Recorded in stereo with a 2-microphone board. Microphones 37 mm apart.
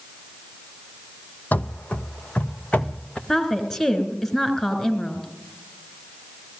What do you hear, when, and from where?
1.5 s running footsteps: 50° left (ahead or behind), 0.7 m; by 3.2 s 30° left (ahead or behind), 1.9 m
3.3 s a woman speaking: 15° left (ahead or behind), 3.5 m